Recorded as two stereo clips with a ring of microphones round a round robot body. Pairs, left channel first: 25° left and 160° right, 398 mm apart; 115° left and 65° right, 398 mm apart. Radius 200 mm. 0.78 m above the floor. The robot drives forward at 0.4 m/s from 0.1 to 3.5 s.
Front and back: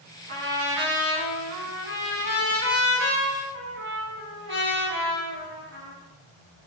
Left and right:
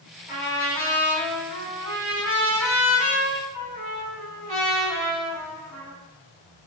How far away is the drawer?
I don't hear a drawer.